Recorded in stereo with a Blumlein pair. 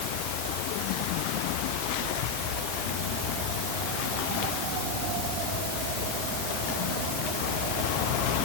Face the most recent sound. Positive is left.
No sound to turn to.